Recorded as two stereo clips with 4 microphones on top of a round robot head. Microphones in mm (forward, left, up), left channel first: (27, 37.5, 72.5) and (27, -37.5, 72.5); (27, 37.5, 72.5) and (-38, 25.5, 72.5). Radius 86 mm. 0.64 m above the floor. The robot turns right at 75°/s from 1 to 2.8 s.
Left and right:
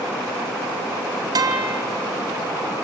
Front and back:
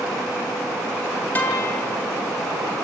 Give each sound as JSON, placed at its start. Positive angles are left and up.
{"t": 1.4, "sound": "a guitar", "azimuth_deg": -60, "distance_m": 3.0}